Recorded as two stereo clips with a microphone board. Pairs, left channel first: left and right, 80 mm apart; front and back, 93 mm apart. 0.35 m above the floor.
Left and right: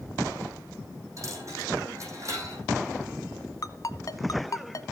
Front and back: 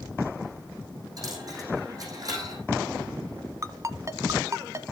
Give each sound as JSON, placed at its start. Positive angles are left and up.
{"t": 1.2, "sound": "a dropped coin", "azimuth_deg": -135, "distance_m": 6.0}
{"t": 3.6, "sound": "a ringtone", "azimuth_deg": 130, "distance_m": 1.0}